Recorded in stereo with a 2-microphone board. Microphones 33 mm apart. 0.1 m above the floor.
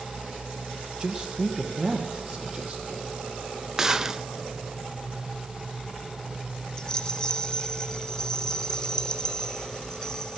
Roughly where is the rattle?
Left.